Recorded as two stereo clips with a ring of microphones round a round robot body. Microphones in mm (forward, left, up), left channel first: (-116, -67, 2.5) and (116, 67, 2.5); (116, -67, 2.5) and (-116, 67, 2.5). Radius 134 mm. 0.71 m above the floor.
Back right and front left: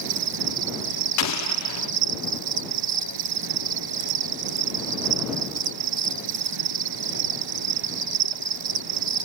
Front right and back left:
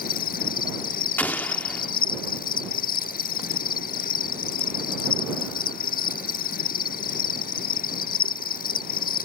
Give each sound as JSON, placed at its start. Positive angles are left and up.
{"t": 0.0, "sound": "an insect", "azimuth_deg": 30}
{"t": 1.2, "sound": "an explosion", "azimuth_deg": -115}